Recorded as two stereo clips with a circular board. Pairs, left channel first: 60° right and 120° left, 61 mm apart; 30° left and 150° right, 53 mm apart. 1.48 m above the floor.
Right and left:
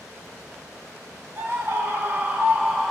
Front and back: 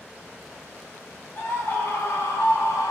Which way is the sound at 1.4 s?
75° left.